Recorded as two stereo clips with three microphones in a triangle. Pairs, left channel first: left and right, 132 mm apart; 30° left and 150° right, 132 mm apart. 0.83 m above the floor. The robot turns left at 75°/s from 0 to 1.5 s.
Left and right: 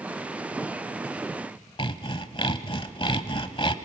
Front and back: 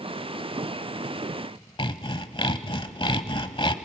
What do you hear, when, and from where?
1.8 s sawing: 60° left, 0.8 m